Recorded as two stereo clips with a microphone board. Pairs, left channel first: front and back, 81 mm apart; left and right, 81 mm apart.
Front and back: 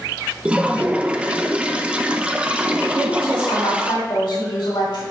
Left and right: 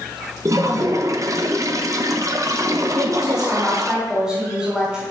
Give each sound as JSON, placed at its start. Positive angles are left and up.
{"t": 0.5, "sound": "a toilet flushing", "azimuth_deg": -110, "distance_m": 0.6}
{"t": 2.9, "sound": "a woman speaking", "azimuth_deg": -10, "distance_m": 4.5}